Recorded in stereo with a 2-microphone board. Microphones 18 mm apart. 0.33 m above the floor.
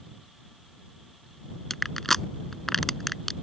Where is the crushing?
15° left (ahead or behind).